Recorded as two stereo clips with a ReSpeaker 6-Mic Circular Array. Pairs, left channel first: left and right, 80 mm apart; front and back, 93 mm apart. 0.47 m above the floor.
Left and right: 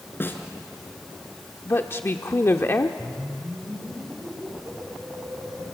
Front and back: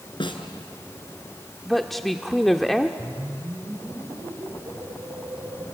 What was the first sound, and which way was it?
A snare drum, 25° left.